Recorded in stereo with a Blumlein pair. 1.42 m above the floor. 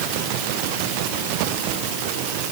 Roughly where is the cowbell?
No cowbell in this recording.